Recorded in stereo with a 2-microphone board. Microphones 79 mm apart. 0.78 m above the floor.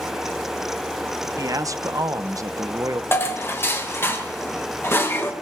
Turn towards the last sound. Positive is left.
turn(degrees=30)  # may be behind; listen again after turning